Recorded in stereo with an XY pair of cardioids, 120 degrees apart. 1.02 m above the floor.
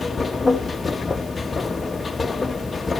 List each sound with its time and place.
0.0 s a machine running: 20° left, 1.1 m